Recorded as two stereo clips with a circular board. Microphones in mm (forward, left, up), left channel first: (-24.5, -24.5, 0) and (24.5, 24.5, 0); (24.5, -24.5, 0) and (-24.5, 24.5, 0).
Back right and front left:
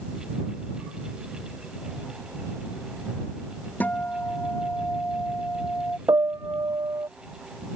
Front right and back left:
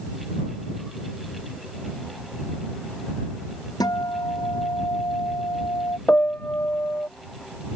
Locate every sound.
3.8 s a guitar: 70° right
6.1 s a piano: 20° left